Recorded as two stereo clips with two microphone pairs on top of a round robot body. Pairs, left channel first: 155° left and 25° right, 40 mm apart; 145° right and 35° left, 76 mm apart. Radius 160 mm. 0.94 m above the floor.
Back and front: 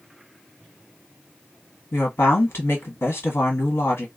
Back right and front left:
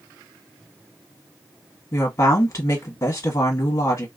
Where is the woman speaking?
160° left, 1.3 m.